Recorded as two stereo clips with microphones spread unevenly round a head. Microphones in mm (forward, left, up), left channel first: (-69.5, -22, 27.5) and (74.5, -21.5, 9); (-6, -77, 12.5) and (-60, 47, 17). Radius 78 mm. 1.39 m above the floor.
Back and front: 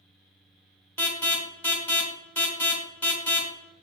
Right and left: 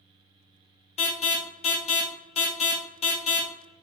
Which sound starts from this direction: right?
An alarm, at 1.0 s.